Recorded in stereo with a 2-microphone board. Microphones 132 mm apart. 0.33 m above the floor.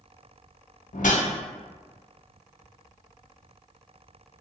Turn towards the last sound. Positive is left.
turn(degrees=75)  # may be behind; listen again after turning